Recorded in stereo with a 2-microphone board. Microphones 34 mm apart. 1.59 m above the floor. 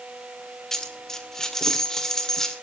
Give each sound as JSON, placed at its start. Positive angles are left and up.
{"t": 0.7, "sound": "a dropped coin", "side_deg": 15, "distance_m": 1.7}